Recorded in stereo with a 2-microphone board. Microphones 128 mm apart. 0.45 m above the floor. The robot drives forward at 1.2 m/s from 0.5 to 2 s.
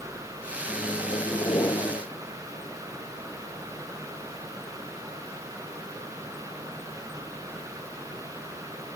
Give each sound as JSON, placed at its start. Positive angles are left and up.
{"t": 0.7, "sound": "a microwave", "side_deg": 25}